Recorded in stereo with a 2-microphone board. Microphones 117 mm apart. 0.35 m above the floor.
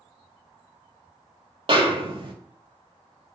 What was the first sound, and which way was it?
A snare drum, 45° right (ahead or behind).